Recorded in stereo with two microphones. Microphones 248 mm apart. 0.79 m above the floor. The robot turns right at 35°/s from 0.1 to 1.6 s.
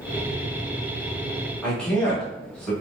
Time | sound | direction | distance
1.6 | a man speaking | 5° left (ahead or behind) | 1.1 m